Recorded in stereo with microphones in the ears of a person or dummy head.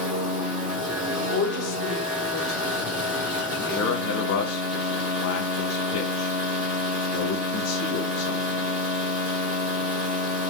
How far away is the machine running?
About 1.8 m.